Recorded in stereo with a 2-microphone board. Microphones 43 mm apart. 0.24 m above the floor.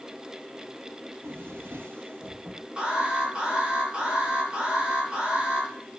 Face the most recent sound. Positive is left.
turn(degrees=-25)  # may be behind; listen again after turning